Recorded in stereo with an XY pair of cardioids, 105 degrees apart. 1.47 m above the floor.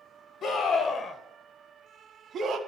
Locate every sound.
0.4 s a scream: 60° left, 1.3 m; by 2.6 s 55° right, 0.8 m